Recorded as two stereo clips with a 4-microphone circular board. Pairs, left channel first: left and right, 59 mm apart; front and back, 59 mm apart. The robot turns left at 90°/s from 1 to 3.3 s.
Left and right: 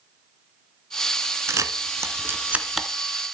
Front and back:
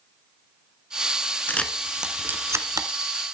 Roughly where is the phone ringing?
No phone ringing in this recording.